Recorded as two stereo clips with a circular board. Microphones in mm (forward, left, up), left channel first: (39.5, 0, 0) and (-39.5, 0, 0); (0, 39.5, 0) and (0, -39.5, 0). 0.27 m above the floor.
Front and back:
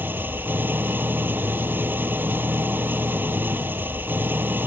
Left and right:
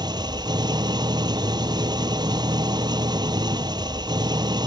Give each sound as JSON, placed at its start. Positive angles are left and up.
{"t": 0.0, "sound": "an engine running", "azimuth_deg": -115}